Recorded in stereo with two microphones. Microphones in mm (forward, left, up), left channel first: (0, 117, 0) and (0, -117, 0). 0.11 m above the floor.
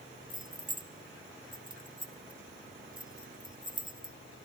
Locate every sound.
0.3 s keys jangling: 20° right (ahead or behind), 0.8 m